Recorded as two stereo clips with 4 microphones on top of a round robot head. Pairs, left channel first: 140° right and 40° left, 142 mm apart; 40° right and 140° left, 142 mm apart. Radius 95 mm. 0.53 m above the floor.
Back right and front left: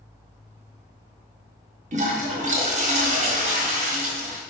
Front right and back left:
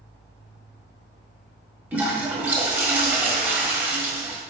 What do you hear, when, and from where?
1.9 s a toilet flushing: 65° left, 1.5 m